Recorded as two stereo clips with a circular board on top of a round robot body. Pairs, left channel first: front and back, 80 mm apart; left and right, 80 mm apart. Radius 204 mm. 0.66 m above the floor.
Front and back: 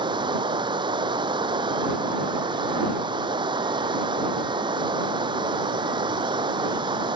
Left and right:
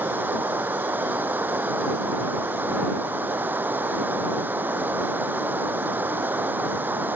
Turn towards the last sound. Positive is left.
turn(degrees=-160)